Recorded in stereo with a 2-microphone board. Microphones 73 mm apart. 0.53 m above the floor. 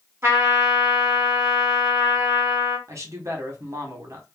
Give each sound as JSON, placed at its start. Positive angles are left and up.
{"t": 0.2, "sound": "a trumpet", "side_deg": -35, "distance_m": 1.6}
{"t": 2.9, "sound": "a man speaking", "side_deg": -45, "distance_m": 1.1}